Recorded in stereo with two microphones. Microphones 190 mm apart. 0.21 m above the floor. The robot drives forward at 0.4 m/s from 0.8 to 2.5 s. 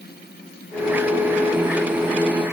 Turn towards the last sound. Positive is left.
No sound to turn to.